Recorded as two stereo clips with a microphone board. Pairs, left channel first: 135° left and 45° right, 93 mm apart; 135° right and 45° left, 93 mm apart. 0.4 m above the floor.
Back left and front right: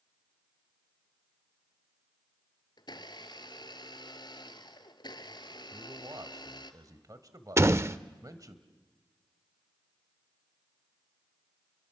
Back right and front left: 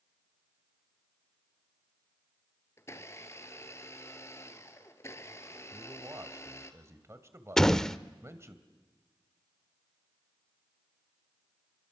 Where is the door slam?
55° right, 0.5 m.